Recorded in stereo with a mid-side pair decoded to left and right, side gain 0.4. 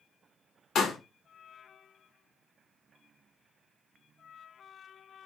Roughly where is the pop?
Ahead left.